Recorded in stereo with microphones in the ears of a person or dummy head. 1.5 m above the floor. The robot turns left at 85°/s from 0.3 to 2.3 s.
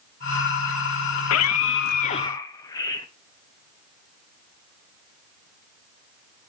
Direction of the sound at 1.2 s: 115° left.